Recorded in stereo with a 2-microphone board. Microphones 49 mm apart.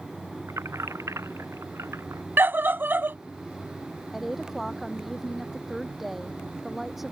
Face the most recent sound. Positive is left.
turn(degrees=-5)  # may be behind; listen again after turning